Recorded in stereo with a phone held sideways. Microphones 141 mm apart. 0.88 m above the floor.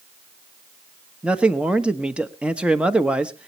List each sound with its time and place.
1.2 s a man speaking: 10° right (ahead or behind), 1.1 m